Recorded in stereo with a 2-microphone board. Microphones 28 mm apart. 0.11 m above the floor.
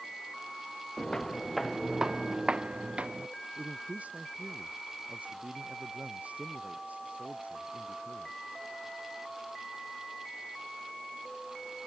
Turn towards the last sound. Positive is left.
turn(degrees=-60)  # may be behind; listen again after turning